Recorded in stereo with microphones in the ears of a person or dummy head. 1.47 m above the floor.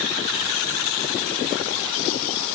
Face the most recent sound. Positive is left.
No sound to turn to.